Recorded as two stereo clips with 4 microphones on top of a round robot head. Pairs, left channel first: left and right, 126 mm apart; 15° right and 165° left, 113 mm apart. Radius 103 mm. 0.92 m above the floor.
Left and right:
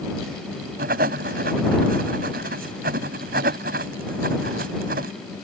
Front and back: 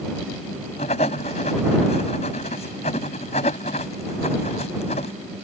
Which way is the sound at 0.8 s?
65° right.